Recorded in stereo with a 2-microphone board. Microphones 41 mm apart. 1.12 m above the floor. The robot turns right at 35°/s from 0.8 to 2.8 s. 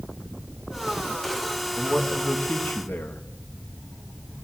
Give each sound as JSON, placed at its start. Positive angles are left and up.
{"t": 1.8, "sound": "a man speaking", "azimuth_deg": 25, "distance_m": 1.5}